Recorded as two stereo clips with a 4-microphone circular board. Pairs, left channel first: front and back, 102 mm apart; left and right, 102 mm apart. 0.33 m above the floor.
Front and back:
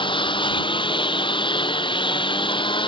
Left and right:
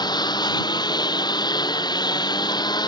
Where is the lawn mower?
40° left.